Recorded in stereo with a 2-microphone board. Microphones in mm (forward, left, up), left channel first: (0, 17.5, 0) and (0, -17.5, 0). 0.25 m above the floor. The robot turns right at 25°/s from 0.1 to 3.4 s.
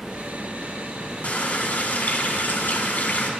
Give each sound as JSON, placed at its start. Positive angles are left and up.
{"t": 1.2, "sound": "a running tap", "azimuth_deg": 60, "distance_m": 1.3}